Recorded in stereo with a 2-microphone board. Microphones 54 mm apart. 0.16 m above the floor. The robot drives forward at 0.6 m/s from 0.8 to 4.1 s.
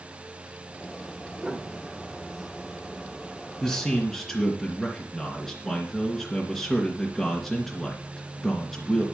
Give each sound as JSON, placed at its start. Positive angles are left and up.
{"t": 1.4, "sound": "a piano", "side_deg": -15, "distance_m": 1.8}
{"t": 3.6, "sound": "a man speaking", "side_deg": 5, "distance_m": 2.5}